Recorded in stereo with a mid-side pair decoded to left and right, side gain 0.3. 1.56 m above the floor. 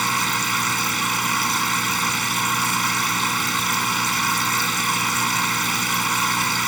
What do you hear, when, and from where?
0.0 s a machine running: 30° right